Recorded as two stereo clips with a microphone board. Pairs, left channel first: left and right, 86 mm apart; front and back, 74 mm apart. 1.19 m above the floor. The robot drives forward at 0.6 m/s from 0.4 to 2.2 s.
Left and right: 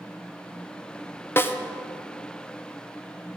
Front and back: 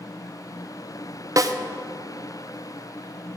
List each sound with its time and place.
1.4 s a snare drum: 150° left, 0.5 m; by 1.6 s 155° left, 0.6 m